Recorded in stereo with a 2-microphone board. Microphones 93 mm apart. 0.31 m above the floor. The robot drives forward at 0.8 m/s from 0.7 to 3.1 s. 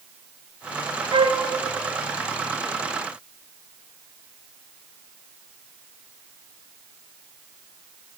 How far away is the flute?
About 0.6 m.